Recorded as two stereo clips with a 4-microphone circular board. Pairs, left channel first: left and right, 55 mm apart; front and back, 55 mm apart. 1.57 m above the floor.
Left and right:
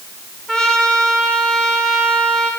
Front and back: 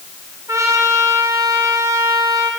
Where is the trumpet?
165° left, 3 m.